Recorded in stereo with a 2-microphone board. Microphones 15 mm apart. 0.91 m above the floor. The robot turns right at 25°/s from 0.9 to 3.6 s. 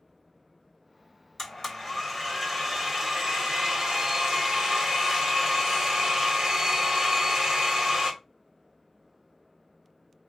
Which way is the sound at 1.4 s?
160° left.